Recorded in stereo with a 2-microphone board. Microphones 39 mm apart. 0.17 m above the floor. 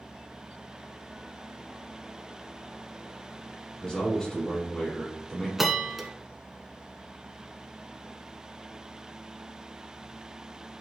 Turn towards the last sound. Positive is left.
turn(degrees=-5)  # may be behind; listen again after turning